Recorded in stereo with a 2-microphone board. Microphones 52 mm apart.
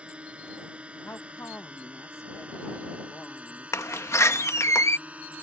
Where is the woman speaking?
55° left (ahead or behind).